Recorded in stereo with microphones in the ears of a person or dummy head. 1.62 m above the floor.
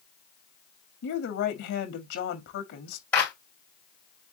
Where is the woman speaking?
65° left (ahead or behind), 1.4 m.